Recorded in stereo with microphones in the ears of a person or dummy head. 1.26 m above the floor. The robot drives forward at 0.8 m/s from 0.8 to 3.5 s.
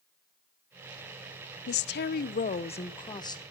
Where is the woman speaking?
50° left (ahead or behind), 0.6 m; by 3.4 s 20° left (ahead or behind), 1.5 m.